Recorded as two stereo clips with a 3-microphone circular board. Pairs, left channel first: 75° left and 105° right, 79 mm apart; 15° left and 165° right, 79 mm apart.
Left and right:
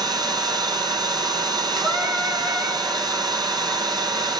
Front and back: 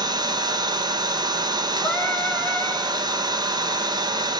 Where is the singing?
45° right, 7 m.